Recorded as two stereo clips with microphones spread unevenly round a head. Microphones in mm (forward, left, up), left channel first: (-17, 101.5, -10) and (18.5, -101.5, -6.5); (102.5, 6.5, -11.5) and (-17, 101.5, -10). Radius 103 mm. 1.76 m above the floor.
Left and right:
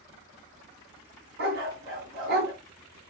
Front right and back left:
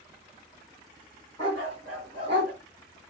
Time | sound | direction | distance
1.4 | a dog barking | 110° right | 2.5 m